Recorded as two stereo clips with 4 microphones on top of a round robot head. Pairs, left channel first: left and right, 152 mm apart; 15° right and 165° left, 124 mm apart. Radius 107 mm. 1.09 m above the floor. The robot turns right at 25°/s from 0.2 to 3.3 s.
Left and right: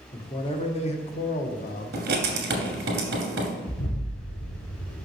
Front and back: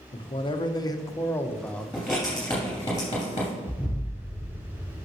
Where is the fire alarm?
I don't hear a fire alarm.